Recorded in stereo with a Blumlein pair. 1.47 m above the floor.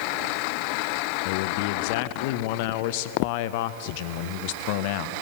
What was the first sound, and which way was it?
A man speaking, 45° left.